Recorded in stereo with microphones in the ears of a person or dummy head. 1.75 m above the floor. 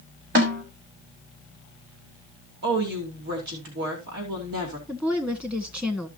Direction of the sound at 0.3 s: 65° right (ahead or behind).